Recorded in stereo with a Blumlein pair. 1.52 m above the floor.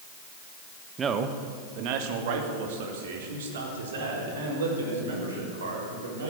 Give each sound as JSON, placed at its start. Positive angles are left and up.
{"t": 1.0, "sound": "a man speaking", "azimuth_deg": -20, "distance_m": 1.3}